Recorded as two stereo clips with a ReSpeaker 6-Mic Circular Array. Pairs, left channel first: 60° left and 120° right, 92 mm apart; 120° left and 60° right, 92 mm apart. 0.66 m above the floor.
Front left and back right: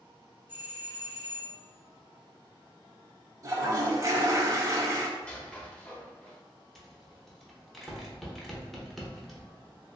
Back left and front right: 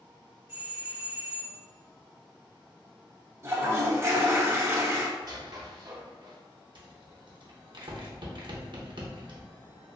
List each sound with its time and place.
0.5 s a doorbell: 85° right, 1.5 m
3.4 s a toilet flushing: 100° right, 0.5 m
5.2 s a squeak: 15° right, 0.6 m
6.8 s a rattle: 25° right, 0.7 m